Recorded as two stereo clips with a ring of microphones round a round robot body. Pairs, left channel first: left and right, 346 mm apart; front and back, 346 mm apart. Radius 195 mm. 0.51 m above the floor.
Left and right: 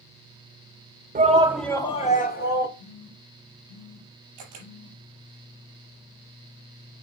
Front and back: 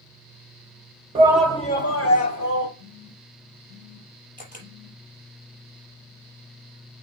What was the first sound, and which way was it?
A shout, 125° right.